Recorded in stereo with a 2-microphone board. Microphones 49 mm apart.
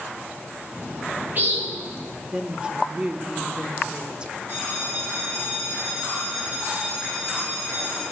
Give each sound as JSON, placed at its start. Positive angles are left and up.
{"t": 0.7, "sound": "a bird", "side_deg": -45, "distance_m": 1.5}
{"t": 2.3, "sound": "a woman speaking", "side_deg": -20, "distance_m": 0.7}
{"t": 4.5, "sound": "a bell", "side_deg": -45, "distance_m": 3.5}